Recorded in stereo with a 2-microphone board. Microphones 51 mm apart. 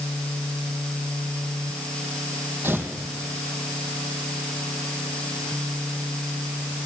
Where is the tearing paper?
45° right (ahead or behind), 4.5 m.